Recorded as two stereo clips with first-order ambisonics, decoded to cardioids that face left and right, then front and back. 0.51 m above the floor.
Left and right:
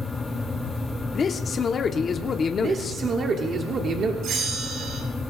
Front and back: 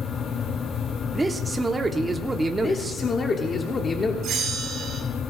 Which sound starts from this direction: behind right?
A bell, at 4.2 s.